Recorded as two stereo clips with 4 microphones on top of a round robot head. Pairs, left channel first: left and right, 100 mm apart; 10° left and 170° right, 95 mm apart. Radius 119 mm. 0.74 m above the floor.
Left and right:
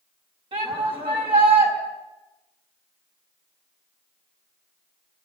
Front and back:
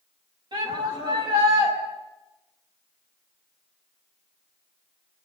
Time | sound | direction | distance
0.5 | a shout | 125° right | 5.5 m